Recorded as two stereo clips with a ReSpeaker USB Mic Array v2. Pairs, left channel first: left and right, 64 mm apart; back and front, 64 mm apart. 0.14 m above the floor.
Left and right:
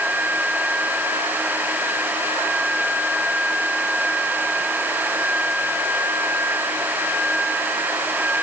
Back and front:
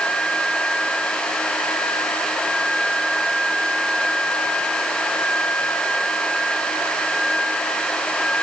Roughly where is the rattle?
I don't hear a rattle.